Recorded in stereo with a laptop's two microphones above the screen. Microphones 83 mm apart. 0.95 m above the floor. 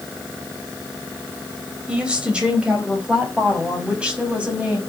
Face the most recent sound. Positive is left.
turn(degrees=-15)  # may be behind; listen again after turning